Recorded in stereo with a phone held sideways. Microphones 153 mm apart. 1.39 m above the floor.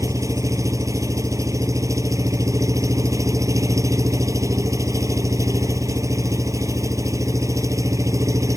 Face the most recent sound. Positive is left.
turn(degrees=-20)  # may be behind; listen again after turning